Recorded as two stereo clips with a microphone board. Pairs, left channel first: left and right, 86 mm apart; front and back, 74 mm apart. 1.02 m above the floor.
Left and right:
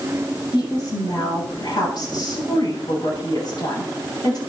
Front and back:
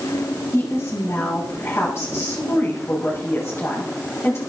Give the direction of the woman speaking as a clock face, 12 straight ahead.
10 o'clock.